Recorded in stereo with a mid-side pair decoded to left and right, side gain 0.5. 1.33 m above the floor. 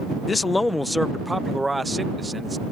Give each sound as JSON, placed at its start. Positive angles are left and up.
{"t": 0.3, "sound": "a man speaking", "azimuth_deg": 35}